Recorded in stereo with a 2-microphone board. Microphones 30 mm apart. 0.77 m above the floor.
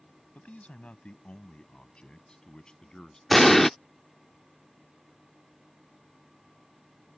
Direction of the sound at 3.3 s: 5° left (ahead or behind).